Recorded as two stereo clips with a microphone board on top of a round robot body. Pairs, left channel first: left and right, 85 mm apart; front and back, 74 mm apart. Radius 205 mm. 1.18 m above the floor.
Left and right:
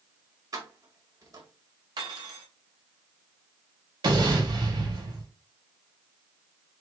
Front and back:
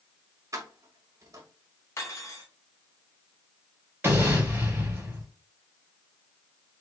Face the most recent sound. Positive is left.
turn(degrees=-115)